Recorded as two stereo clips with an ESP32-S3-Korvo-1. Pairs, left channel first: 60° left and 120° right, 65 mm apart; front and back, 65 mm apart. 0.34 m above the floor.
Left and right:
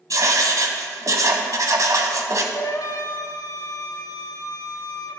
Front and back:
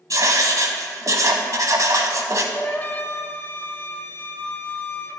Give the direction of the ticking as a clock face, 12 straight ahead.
I don't hear ticking.